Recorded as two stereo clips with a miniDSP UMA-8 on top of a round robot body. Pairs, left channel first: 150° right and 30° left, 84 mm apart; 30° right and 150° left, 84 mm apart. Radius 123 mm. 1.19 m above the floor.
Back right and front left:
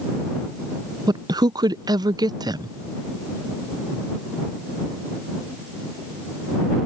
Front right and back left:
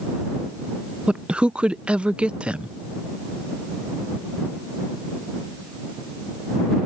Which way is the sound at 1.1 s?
70° left.